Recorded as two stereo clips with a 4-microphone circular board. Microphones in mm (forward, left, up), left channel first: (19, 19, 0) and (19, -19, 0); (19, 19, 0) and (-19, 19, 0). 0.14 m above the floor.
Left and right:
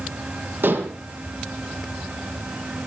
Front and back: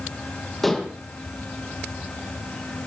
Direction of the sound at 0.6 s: 90° right.